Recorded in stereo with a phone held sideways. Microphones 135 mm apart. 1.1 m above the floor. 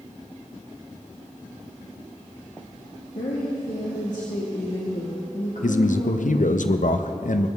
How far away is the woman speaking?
About 1.9 m.